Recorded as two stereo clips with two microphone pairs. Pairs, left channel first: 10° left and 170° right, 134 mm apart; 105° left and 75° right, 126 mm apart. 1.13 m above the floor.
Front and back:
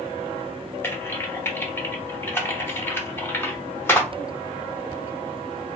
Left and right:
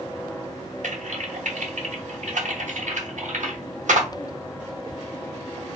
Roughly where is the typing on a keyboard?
Ahead right.